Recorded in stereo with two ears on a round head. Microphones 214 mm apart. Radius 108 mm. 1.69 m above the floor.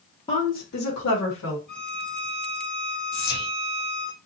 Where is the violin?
Centre (ahead or behind), 1.7 m.